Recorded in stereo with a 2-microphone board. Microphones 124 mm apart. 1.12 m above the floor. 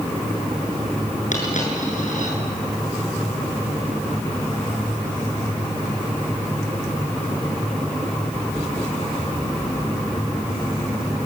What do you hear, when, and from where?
1.3 s a dropped coin: 75° left (ahead or behind), 7.5 m